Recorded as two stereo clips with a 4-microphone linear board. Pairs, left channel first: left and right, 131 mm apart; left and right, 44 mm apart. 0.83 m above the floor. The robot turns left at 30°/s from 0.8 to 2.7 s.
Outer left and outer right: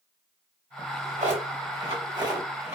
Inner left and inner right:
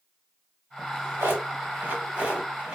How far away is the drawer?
About 1.6 m.